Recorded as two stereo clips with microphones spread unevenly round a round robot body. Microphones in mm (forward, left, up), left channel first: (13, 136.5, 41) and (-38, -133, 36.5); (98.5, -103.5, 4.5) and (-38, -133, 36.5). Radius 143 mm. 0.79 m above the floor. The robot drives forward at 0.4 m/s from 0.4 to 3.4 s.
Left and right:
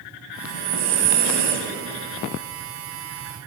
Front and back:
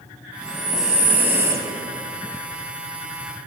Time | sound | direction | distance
0.4 | breathing | 80° right | 1.3 m